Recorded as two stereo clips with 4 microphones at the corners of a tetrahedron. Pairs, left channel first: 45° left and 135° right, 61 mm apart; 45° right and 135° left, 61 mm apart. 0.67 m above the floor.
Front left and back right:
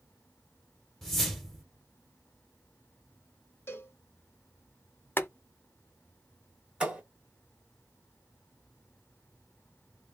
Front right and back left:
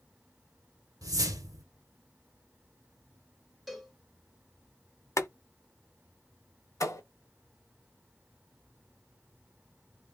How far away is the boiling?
About 0.5 m.